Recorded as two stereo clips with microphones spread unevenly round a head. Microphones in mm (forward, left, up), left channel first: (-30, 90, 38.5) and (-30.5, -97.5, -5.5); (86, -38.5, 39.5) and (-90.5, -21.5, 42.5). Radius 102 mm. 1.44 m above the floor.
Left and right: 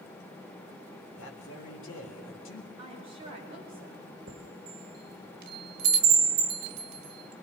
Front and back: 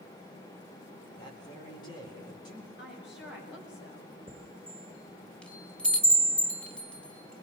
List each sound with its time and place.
1.2 s a man speaking: 65° left, 4 m
2.8 s a woman speaking: 25° right, 6.5 m
4.3 s a chime: 90° right, 1.4 m